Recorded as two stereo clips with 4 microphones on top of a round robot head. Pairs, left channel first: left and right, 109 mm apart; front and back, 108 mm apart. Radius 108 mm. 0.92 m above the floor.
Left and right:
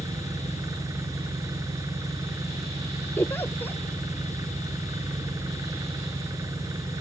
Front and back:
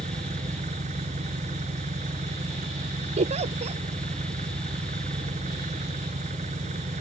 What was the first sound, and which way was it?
An engine running, 155° right.